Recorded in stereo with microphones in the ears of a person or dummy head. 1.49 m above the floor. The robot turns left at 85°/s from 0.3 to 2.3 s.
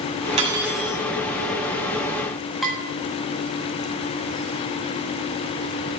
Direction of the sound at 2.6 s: 5° left (ahead or behind).